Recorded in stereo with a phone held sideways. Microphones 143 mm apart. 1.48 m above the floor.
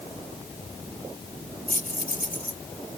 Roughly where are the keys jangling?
Left.